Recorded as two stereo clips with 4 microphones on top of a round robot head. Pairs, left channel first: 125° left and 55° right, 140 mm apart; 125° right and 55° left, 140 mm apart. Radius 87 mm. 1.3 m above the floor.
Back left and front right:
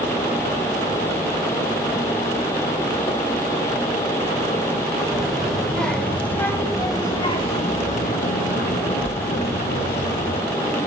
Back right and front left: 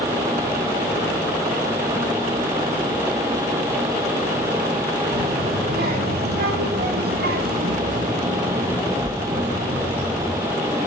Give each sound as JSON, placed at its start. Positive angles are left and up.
{"t": 5.1, "sound": "a child speaking", "azimuth_deg": 35, "distance_m": 4.5}